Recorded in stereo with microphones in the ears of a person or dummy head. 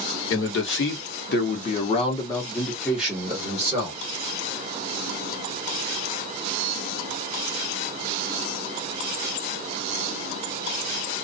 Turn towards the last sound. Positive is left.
turn(degrees=-15)  # may be behind; listen again after turning